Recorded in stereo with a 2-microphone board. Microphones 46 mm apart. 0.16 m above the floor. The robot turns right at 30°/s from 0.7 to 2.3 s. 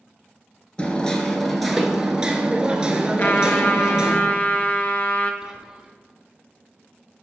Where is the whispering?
10° right (ahead or behind), 1.3 m.